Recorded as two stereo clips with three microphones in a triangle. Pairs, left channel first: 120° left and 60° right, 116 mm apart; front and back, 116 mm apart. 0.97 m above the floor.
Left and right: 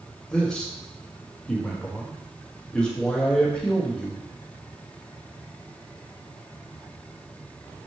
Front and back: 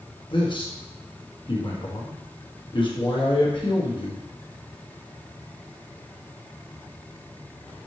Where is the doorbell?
I don't hear a doorbell.